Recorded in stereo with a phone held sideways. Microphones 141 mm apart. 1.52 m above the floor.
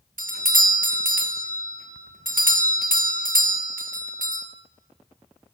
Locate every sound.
0.2 s a doorbell: 75° right (ahead or behind), 0.7 m